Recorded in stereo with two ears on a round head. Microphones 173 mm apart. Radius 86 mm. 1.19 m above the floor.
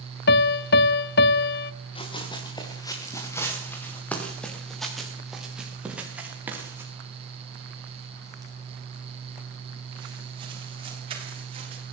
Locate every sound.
0.3 s a piano: 55° left (ahead or behind), 0.6 m
1.9 s running footsteps: 30° left (ahead or behind), 6.5 m; by 11.9 s 30° right (ahead or behind), 13 m